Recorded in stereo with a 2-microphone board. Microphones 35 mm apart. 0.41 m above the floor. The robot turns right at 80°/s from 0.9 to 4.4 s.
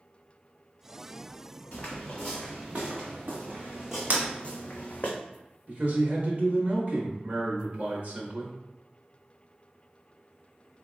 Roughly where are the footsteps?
Left.